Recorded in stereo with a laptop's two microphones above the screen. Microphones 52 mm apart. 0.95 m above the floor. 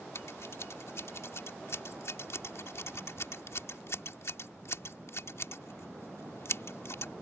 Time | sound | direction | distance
0.1 | scissors | 65° left (ahead or behind) | ?